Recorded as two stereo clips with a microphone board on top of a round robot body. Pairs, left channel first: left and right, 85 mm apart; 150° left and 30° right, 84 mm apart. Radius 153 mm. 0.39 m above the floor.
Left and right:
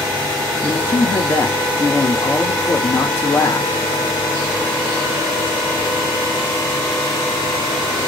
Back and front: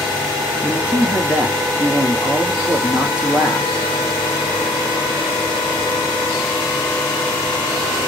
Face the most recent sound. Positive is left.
turn(degrees=40)